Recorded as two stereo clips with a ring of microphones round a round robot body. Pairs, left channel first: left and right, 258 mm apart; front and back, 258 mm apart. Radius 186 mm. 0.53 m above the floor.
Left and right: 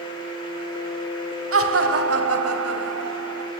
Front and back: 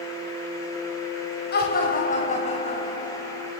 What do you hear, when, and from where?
1.5 s laughter: 60° right, 3.5 m; by 3.5 s 80° right, 4.5 m